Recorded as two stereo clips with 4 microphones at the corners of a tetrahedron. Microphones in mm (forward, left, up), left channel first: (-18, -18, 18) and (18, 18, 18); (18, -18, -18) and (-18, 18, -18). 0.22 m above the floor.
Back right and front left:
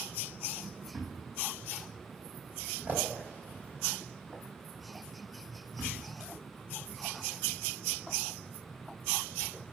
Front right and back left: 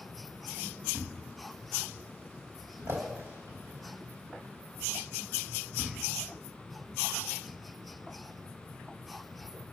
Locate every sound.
0.9 s a thud: 105° left, 4.5 m